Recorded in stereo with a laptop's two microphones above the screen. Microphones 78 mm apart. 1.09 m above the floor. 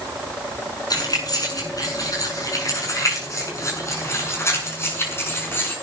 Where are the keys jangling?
50° left (ahead or behind), 7.5 m; by 5.8 s 25° left (ahead or behind), 7 m.